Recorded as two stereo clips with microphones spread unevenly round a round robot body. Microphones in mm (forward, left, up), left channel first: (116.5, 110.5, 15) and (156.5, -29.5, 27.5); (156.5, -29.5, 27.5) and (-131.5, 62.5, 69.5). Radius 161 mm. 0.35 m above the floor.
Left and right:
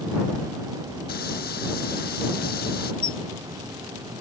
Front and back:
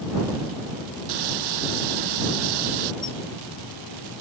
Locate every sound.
1.1 s frying: 160° left
3.0 s a squeak: 90° left